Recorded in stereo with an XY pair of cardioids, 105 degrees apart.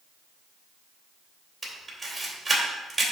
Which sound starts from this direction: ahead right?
A camera shutter, at 1.6 s.